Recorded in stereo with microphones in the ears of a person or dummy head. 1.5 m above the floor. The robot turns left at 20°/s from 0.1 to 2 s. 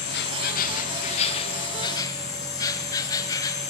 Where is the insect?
55° left, 1.3 m; by 3.7 s 20° left, 1.3 m.